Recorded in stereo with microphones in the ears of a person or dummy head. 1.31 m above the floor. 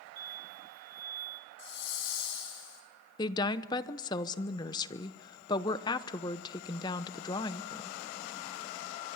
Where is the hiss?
75° left (ahead or behind), 5 m.